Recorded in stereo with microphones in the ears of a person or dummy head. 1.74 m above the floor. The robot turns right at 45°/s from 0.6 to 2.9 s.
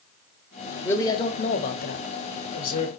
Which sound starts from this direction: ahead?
A man speaking, at 0.8 s.